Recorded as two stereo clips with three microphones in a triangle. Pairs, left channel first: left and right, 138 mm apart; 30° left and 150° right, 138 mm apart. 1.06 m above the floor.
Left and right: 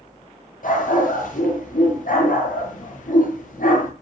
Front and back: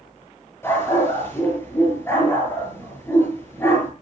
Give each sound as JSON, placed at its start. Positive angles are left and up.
{"t": 0.6, "sound": "a dog barking", "azimuth_deg": 105, "distance_m": 8.5}